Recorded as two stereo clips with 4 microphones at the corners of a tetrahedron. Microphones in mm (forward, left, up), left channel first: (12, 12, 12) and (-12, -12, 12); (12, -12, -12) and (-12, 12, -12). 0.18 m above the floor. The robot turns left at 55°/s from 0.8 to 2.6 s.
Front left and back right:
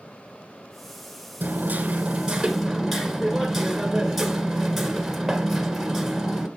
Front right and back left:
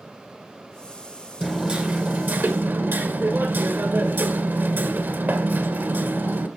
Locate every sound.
1.4 s hammering: 150° right, 1.6 m; by 6.5 s 145° left, 1.6 m